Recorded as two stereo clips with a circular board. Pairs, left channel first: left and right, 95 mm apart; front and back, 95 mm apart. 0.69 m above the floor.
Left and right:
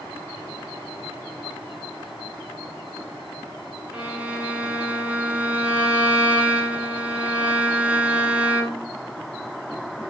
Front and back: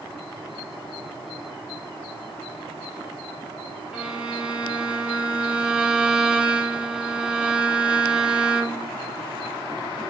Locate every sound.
3.9 s a violin: 125° right, 1.1 m